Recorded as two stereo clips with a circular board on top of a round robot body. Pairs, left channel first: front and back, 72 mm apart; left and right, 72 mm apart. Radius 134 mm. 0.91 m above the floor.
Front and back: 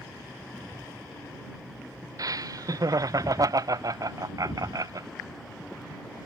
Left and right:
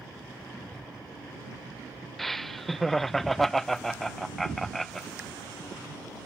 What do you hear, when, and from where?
2.2 s laughter: 175° left